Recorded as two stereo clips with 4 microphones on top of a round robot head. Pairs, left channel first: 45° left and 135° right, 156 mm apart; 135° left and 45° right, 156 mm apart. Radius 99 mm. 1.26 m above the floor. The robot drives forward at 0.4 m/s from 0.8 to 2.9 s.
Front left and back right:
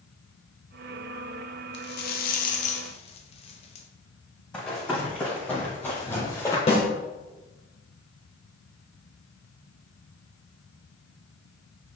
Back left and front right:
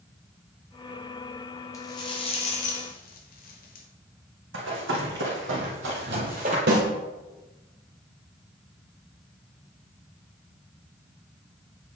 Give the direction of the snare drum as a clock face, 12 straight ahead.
12 o'clock.